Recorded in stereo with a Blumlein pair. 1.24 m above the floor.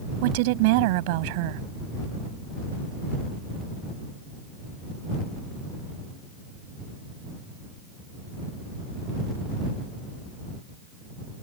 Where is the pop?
No pop in this recording.